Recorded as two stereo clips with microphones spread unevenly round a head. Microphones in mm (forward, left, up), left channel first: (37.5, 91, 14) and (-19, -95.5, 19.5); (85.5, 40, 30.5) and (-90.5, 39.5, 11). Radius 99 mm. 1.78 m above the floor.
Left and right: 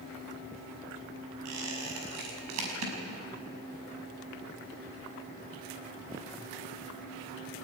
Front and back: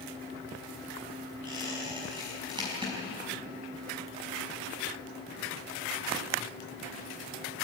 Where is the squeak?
110° right, 5.5 m.